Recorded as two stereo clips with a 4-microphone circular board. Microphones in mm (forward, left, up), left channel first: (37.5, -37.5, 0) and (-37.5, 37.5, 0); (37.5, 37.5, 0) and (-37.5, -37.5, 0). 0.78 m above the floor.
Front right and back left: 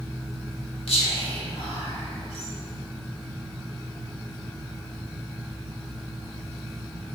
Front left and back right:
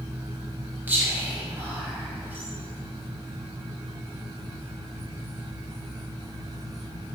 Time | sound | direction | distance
0.9 | whispering | 65° right | 1.4 m